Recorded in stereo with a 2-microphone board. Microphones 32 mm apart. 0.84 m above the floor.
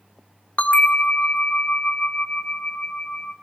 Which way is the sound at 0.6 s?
40° left (ahead or behind).